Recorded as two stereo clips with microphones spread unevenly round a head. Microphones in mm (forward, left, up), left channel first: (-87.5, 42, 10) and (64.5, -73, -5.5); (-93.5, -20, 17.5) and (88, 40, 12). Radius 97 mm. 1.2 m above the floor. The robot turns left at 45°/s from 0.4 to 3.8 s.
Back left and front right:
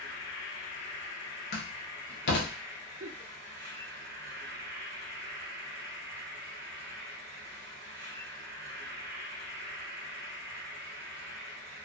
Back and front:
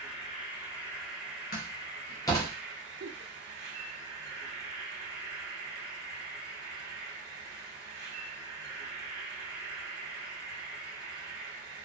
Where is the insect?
140° left, 1.0 m; by 11.9 s 15° right, 1.0 m.